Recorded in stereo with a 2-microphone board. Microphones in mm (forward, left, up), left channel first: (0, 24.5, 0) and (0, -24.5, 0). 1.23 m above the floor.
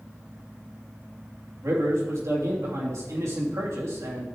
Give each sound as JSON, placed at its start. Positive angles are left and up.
{"t": 1.6, "sound": "a man speaking", "side_deg": -70, "distance_m": 3.0}